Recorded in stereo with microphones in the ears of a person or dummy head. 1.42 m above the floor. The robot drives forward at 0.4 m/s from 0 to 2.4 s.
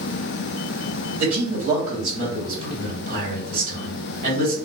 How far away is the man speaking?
About 1.5 m.